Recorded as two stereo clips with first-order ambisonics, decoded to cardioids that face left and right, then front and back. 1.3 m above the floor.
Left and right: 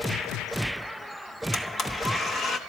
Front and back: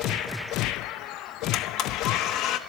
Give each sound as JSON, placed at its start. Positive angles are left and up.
{"t": 1.5, "sound": "a blender", "azimuth_deg": 30, "distance_m": 1.0}